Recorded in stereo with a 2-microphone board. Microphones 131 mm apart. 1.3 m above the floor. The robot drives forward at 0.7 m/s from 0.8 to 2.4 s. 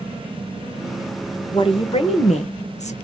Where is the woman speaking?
40° left (ahead or behind), 1.4 m; by 2.9 s 60° left (ahead or behind), 1.0 m.